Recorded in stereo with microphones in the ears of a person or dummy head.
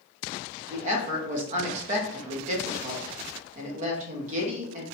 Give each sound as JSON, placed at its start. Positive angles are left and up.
{"t": 0.7, "sound": "a woman speaking", "side_deg": -45, "distance_m": 0.7}